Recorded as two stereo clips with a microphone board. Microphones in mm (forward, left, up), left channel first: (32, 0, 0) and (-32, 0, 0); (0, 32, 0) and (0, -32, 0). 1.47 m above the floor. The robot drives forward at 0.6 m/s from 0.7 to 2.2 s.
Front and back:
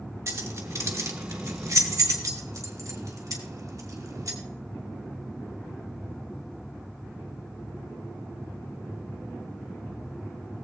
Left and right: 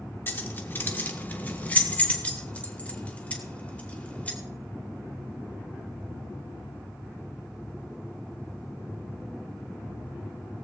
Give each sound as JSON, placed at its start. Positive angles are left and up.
{"t": 0.3, "sound": "keys jangling", "azimuth_deg": 145, "distance_m": 1.7}